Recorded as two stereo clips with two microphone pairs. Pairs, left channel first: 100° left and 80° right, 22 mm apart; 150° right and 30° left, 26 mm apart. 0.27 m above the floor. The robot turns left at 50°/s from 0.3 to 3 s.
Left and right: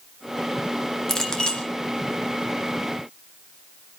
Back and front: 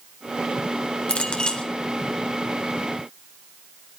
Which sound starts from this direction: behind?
A clink, at 1.1 s.